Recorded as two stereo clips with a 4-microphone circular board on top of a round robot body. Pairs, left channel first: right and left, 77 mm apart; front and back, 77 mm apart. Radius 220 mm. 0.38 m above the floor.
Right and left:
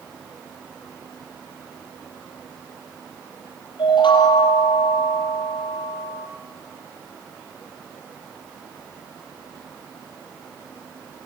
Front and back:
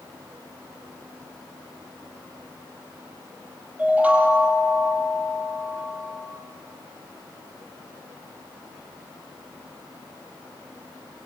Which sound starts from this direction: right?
A chime, at 3.8 s.